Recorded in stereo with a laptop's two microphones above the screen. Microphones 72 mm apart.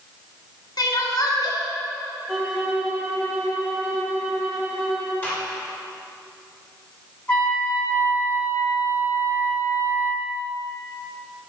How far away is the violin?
About 3 m.